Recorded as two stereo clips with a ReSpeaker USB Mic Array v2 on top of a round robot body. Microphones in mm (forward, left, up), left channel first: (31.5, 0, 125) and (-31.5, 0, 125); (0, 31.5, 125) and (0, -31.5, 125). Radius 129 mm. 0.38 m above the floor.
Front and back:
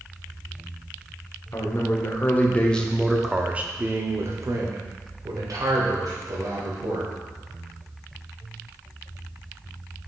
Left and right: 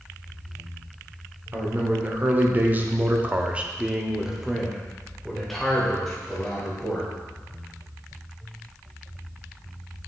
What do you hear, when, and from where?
1.5 s a man speaking: 35° right, 1.6 m; by 7.1 s 170° left, 3 m